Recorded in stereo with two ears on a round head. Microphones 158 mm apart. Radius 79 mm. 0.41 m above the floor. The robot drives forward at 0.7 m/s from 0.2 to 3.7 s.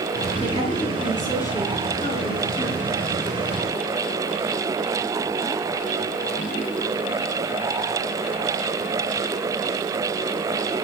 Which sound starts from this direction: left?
A woman speaking, at 0.4 s.